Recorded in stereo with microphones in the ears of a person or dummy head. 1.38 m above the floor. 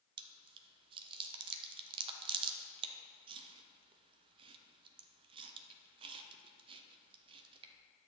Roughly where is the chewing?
Right.